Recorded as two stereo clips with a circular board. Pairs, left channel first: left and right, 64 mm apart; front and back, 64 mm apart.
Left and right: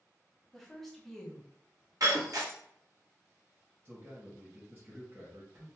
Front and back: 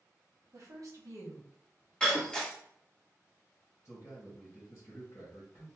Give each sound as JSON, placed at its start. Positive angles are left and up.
{"t": 0.5, "sound": "a woman speaking", "azimuth_deg": 175, "distance_m": 1.0}
{"t": 2.0, "sound": "breaking glass", "azimuth_deg": -75, "distance_m": 1.0}
{"t": 3.9, "sound": "a man speaking", "azimuth_deg": -40, "distance_m": 1.8}